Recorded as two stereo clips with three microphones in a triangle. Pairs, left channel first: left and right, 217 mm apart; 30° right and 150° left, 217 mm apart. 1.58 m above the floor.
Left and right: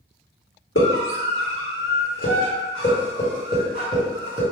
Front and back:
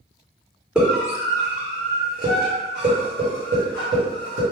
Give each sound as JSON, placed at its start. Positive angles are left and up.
{"t": 0.8, "sound": "a scream", "azimuth_deg": 65, "distance_m": 1.3}